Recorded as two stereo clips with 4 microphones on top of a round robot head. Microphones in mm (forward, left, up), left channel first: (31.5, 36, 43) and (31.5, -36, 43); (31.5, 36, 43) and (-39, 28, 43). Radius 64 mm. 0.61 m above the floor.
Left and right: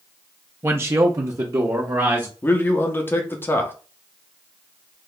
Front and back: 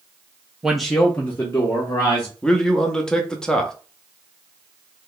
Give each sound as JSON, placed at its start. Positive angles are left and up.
{"t": 0.6, "sound": "a man speaking", "azimuth_deg": -100, "distance_m": 0.6}
{"t": 2.4, "sound": "a man speaking", "azimuth_deg": 75, "distance_m": 0.8}